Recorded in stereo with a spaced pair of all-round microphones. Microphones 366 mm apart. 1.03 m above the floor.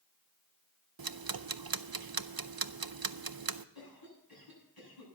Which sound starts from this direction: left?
A cough, at 3.8 s.